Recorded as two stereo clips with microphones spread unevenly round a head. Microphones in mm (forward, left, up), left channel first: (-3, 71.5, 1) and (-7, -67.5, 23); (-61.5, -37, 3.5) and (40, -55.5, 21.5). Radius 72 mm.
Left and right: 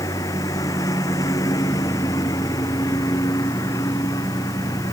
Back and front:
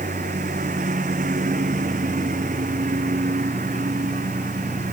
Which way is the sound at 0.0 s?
20° left.